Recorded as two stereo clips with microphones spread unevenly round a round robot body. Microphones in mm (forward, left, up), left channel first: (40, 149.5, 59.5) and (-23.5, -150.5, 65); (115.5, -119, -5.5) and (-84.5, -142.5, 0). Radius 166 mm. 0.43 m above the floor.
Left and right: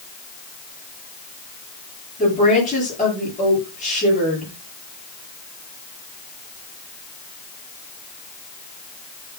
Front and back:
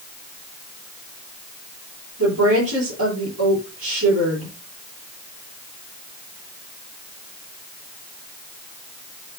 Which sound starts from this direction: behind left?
A woman speaking, at 2.2 s.